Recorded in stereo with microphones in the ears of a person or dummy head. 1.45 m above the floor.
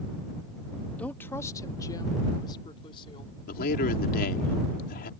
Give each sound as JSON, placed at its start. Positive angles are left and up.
{"t": 1.0, "sound": "a woman speaking", "side_deg": 5}
{"t": 3.5, "sound": "a man speaking", "side_deg": 50}